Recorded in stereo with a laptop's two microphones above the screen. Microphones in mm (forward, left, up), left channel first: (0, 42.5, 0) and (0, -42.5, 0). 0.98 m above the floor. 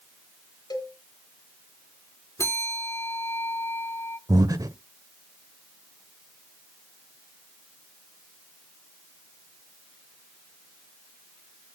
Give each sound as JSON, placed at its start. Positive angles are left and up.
{"t": 0.7, "sound": "a cowbell", "side_deg": 55, "distance_m": 1.8}
{"t": 2.4, "sound": "a bell", "side_deg": 35, "distance_m": 2.5}
{"t": 4.3, "sound": "breathing", "side_deg": -45, "distance_m": 0.9}